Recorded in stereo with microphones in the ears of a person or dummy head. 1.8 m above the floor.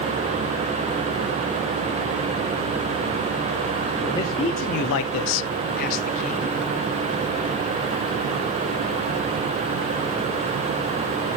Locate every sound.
4.0 s a man speaking: 10° left (ahead or behind), 1.3 m; by 6.6 s 35° left (ahead or behind), 2.0 m